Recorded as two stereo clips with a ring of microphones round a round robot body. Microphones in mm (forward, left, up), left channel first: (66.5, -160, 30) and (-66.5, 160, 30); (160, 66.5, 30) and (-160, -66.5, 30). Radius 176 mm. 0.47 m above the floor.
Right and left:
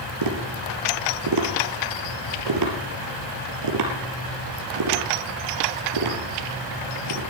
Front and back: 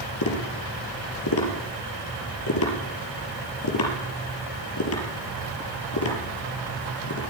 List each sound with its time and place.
0.2 s tapping: 75° left, 3 m